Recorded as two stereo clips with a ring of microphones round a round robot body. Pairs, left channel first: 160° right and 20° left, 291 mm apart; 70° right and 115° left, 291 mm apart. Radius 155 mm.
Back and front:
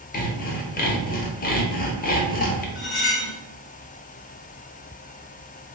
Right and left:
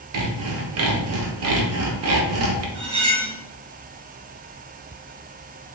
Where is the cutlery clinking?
145° left, 1.8 m.